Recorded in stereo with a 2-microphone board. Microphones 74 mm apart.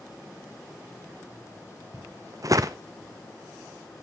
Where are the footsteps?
50° right (ahead or behind), 0.7 m.